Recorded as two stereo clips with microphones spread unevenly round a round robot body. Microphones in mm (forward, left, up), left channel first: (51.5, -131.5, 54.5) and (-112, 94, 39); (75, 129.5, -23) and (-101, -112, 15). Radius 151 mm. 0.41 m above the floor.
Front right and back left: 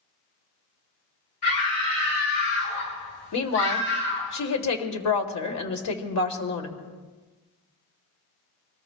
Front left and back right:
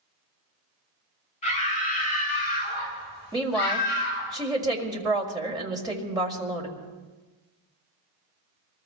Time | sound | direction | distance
1.4 | a scream | 15° right | 9.5 m
3.3 | a woman speaking | 45° right | 1.9 m